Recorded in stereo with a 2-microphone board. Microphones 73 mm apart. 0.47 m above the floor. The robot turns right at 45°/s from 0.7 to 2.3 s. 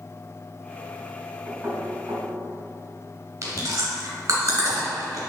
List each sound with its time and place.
1.5 s knocking: 15° right (ahead or behind), 1.5 m; by 2.3 s 50° right (ahead or behind), 1.5 m
3.4 s chewing: 45° right (ahead or behind), 2.0 m